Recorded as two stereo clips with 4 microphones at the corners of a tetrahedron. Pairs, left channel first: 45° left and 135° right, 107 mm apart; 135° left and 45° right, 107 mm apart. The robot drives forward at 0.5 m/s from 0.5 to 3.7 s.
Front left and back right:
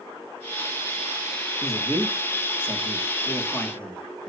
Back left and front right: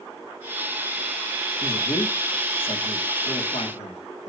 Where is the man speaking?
105° left, 2.5 m; by 4.3 s 125° left, 3 m.